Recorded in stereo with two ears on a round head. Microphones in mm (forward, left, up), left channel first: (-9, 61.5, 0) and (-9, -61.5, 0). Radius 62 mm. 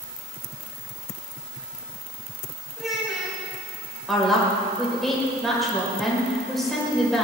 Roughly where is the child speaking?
Centre.